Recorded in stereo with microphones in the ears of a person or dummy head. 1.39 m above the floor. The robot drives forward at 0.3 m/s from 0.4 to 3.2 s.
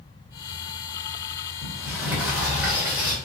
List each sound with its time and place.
1.6 s a sliding door: centre (ahead or behind), 1.0 m